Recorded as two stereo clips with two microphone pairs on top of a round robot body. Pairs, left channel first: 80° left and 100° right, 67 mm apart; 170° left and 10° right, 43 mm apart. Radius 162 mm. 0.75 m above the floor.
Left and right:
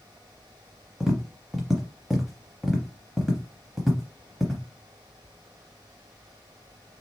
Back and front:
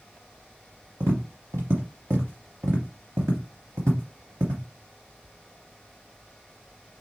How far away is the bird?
No bird in this recording.